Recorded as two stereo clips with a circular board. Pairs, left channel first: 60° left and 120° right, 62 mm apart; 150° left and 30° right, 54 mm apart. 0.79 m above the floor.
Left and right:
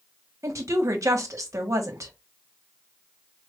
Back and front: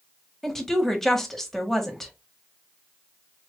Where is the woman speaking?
125° right, 1.1 m.